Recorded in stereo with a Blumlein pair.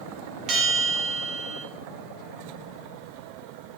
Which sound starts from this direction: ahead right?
A bell, at 0.5 s.